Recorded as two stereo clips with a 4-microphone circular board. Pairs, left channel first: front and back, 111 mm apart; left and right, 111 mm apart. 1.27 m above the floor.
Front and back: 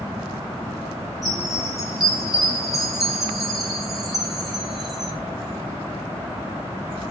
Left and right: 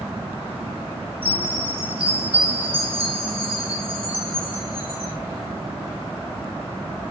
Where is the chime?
90° right, 1.3 m.